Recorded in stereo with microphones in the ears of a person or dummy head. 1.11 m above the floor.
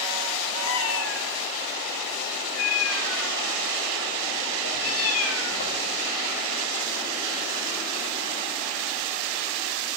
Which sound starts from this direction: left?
A cat meowing, at 0.6 s.